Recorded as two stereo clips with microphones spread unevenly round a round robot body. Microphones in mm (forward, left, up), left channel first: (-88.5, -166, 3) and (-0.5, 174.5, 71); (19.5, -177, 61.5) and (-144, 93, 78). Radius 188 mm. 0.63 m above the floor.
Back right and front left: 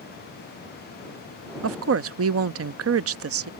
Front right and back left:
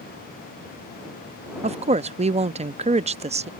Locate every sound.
1.6 s a woman speaking: 75° left